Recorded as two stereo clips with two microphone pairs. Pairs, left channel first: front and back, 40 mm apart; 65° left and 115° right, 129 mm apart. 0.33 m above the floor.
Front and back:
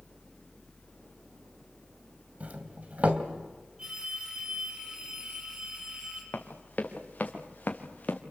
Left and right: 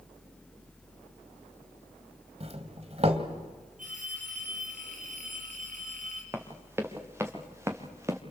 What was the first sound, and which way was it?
A doorbell, 135° right.